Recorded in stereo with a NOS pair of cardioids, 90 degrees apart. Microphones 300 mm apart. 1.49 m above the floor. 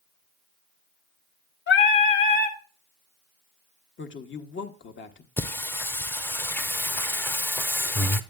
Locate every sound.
1.7 s singing: 40° left, 1.1 m
4.0 s a woman speaking: 40° left, 1.0 m
5.4 s singing: 5° left, 0.6 m